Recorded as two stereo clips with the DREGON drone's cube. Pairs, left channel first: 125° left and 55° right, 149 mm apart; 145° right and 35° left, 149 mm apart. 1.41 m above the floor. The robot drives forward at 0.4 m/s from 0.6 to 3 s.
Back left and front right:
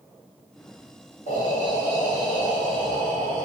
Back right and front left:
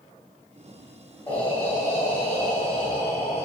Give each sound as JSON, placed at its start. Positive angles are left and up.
{"t": 1.3, "sound": "breathing", "azimuth_deg": 140, "distance_m": 1.9}